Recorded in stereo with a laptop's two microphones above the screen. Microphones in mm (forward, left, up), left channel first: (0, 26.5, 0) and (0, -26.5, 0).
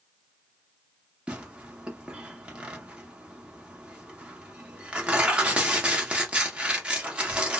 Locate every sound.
1.3 s tearing paper: 25° right (ahead or behind), 0.9 m